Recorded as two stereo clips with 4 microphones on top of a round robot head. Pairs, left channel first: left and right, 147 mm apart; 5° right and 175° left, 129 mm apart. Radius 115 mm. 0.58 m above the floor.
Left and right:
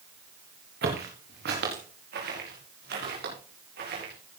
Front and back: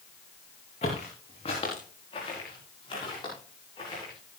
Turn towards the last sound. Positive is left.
turn(degrees=-65)